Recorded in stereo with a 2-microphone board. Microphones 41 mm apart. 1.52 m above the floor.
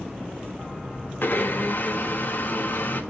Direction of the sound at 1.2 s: 55° left (ahead or behind).